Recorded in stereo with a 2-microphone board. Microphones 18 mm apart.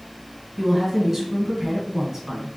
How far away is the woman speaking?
About 1.4 m.